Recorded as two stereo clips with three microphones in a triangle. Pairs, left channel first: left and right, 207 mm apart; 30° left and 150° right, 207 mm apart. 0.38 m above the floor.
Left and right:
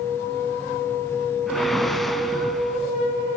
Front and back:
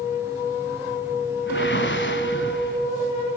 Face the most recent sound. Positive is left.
turn(degrees=0)